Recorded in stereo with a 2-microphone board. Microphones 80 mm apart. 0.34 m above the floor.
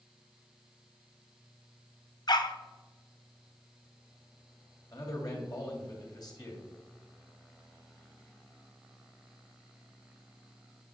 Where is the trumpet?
No trumpet in this recording.